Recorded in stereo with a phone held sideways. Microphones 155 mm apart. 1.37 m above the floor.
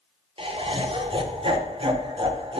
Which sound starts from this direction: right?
Laughter, at 0.4 s.